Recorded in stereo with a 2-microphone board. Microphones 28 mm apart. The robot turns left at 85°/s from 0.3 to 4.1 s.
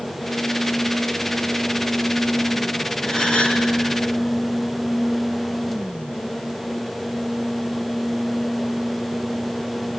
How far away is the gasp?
About 2 m.